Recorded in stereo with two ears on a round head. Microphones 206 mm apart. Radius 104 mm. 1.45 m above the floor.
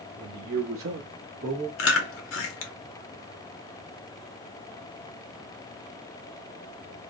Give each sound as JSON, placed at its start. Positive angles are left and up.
{"t": 0.2, "sound": "a man speaking", "side_deg": -50, "distance_m": 1.0}
{"t": 1.8, "sound": "chewing", "side_deg": 60, "distance_m": 0.7}